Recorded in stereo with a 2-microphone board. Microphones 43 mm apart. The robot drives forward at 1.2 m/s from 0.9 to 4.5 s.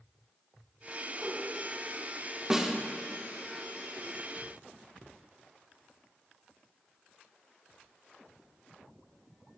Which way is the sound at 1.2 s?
35° right (ahead or behind).